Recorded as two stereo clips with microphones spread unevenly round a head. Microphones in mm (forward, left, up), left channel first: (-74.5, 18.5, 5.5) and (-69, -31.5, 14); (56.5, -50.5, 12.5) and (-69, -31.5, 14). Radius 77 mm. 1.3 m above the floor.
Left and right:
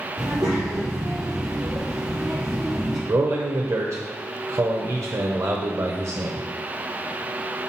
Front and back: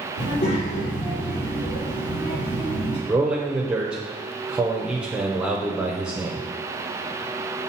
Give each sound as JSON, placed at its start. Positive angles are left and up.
{"t": 0.2, "sound": "a child speaking", "azimuth_deg": -45, "distance_m": 2.5}
{"t": 3.1, "sound": "a man speaking", "azimuth_deg": -105, "distance_m": 0.9}